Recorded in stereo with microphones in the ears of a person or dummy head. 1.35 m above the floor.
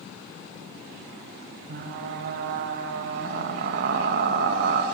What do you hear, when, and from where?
1.7 s frying: 55° right (ahead or behind), 1.9 m